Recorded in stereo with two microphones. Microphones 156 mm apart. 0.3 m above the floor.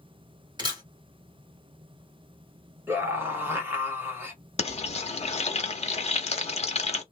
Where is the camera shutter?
25° right (ahead or behind), 1.5 m.